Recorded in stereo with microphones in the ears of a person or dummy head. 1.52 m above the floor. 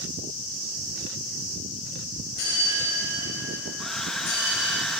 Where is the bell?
70° left (ahead or behind), 4 m.